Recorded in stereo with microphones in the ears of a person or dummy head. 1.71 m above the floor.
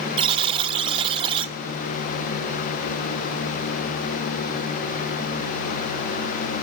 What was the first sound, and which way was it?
A buzzer, 30° right (ahead or behind).